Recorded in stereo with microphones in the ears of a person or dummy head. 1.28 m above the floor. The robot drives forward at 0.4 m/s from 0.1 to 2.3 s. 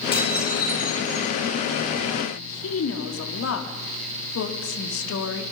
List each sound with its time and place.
0.1 s dishes clattering: 20° left (ahead or behind), 8.5 m
2.3 s a woman speaking: 85° left, 3 m